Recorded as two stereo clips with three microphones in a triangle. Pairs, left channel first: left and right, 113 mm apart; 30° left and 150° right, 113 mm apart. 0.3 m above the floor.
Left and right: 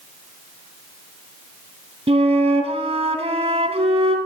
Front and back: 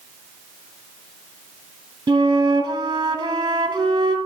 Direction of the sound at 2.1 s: 100° right.